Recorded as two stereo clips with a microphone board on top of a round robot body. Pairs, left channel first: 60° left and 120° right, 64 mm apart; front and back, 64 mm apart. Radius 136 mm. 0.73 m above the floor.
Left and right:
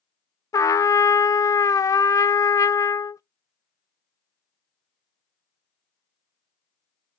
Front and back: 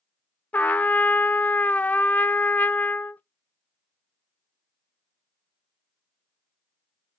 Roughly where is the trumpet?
Ahead left.